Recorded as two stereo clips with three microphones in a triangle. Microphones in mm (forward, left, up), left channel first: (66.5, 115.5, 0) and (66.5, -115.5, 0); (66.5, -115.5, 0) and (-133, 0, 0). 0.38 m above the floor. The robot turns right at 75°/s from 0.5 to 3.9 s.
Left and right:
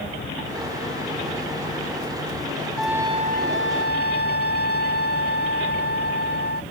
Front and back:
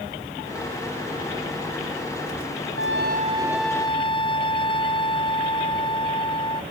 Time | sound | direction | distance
2.8 | a trumpet | 175° left | ?